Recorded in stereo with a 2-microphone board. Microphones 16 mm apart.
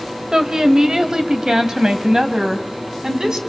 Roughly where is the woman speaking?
Right.